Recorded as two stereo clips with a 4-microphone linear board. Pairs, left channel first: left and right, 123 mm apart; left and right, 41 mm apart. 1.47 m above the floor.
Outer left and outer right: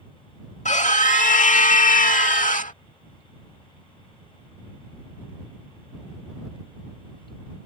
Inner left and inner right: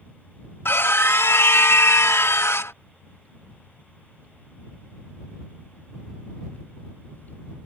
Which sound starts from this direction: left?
A scream, at 0.7 s.